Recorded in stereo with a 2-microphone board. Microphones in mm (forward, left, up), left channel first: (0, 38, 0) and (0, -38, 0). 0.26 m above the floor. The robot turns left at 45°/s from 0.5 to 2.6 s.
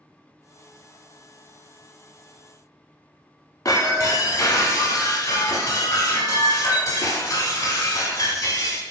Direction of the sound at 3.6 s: 55° left (ahead or behind).